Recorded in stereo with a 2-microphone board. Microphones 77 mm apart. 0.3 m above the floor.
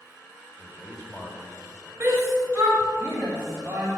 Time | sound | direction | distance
0.6 | a man speaking | 10° right (ahead or behind) | 1.6 m
2.0 | a shout | 35° right (ahead or behind) | 1.6 m